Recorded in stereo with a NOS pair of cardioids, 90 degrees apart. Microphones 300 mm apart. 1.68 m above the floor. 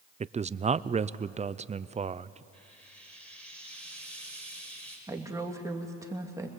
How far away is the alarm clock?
I don't hear an alarm clock.